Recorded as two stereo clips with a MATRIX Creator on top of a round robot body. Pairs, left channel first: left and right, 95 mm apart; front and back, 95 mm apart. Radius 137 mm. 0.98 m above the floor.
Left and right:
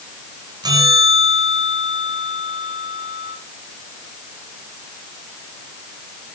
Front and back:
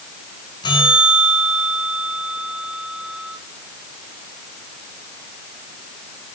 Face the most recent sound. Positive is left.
turn(degrees=-45)